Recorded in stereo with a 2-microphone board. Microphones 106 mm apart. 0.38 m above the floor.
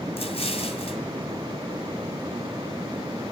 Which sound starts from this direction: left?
An explosion, at 0.2 s.